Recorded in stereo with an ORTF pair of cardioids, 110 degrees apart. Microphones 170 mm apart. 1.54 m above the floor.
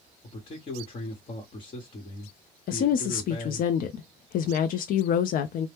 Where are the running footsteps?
I don't hear running footsteps.